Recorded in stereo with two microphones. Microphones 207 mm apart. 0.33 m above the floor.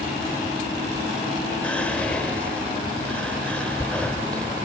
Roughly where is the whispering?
Centre.